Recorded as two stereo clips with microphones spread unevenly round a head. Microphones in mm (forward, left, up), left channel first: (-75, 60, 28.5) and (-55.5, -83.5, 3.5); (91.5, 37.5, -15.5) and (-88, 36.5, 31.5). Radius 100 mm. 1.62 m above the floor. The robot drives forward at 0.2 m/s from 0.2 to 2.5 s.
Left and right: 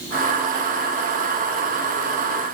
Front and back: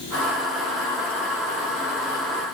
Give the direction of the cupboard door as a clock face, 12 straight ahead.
I don't hear a cupboard door.